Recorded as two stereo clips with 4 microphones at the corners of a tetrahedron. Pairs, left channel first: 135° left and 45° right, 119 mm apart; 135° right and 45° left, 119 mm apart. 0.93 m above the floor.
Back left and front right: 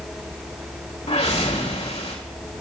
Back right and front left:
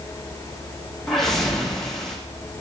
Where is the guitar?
No guitar in this recording.